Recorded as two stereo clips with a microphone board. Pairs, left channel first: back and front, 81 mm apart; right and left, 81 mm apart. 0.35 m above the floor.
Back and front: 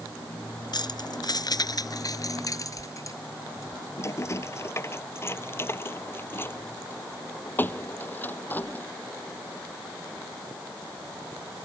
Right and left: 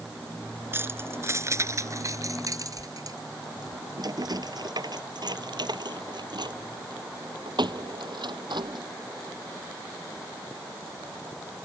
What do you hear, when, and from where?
0.7 s keys jangling: 150° left; by 8.8 s 110° left